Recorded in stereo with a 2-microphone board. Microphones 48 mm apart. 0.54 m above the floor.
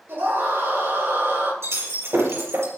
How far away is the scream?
About 8.5 m.